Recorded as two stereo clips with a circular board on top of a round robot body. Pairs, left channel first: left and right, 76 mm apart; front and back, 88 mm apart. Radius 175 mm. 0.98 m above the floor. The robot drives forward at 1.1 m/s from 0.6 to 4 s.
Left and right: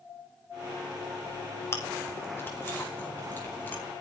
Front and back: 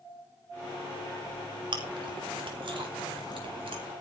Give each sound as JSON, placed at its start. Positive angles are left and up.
{"t": 1.7, "sound": "chewing", "azimuth_deg": 145, "distance_m": 4.0}